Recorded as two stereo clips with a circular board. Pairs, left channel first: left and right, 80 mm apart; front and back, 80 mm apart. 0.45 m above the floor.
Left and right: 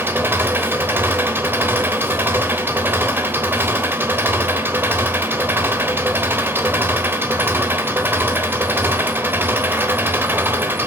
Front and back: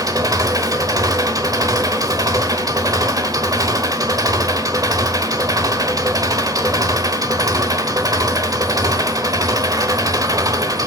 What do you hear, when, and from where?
0.0 s an engine running: 150° right, 1.3 m